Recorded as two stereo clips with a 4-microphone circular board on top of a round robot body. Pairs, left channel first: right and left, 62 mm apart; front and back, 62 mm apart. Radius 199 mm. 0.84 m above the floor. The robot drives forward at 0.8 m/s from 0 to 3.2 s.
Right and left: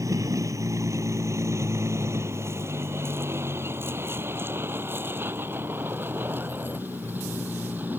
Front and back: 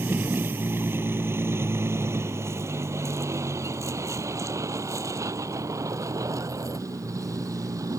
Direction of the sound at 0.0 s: 120° left.